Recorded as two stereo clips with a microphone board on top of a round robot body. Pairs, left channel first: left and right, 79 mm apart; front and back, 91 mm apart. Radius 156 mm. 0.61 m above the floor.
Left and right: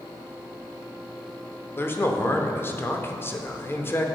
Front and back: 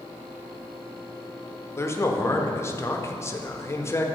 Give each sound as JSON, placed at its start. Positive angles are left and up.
{"t": 1.8, "sound": "a man speaking", "azimuth_deg": 45, "distance_m": 0.9}